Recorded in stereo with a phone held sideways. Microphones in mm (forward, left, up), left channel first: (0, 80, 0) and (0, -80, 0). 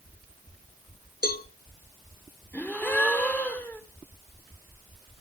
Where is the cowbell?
70° left (ahead or behind), 0.8 m.